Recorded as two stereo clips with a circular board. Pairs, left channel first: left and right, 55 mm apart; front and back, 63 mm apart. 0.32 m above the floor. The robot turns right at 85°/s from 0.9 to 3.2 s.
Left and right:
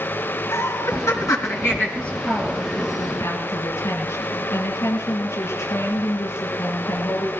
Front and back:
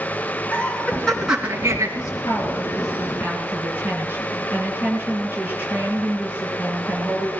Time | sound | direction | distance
0.5 | laughter | 70° left | 3.5 m
1.9 | a woman speaking | 15° left | 5.5 m